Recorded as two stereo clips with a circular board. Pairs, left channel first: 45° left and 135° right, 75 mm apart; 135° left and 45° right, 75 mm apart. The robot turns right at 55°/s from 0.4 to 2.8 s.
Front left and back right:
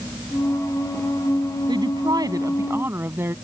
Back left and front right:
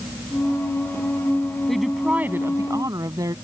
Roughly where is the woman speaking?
Behind right.